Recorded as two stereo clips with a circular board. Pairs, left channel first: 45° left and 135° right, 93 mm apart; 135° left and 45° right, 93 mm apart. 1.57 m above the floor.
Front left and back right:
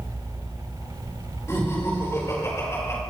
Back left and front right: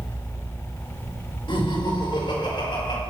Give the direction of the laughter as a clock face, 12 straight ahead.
8 o'clock.